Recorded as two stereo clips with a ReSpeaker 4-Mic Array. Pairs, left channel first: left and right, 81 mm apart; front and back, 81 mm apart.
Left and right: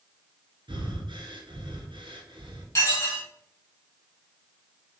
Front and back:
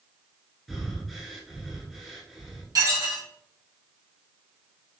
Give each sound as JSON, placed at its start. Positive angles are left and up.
{"t": 0.7, "sound": "breathing", "azimuth_deg": -90, "distance_m": 1.1}
{"t": 2.8, "sound": "dishes clattering", "azimuth_deg": 140, "distance_m": 2.5}